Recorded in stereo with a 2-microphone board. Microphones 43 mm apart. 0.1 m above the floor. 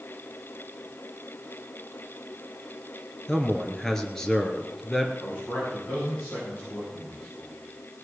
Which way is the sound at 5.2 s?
45° left (ahead or behind).